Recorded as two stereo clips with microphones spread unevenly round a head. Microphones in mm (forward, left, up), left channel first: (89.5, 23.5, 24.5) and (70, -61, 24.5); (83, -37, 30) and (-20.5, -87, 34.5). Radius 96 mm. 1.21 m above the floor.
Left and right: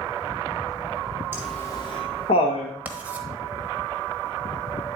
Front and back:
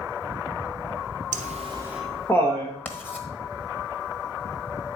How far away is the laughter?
About 0.7 m.